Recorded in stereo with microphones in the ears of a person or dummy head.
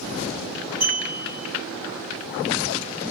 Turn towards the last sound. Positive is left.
turn(degrees=-45)  # may be behind; listen again after turning